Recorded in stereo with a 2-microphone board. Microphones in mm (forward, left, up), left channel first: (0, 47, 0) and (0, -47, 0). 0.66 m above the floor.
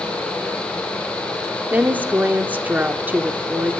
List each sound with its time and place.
1.7 s a woman speaking: 20° right (ahead or behind), 1.6 m